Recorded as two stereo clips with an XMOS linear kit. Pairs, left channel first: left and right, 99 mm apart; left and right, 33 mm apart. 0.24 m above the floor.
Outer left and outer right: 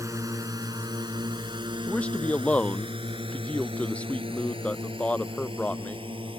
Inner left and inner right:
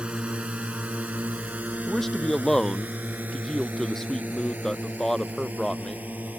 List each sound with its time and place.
0.0 s a drone: 35° right (ahead or behind); by 6.4 s 65° right (ahead or behind)
1.9 s a man speaking: 15° left (ahead or behind)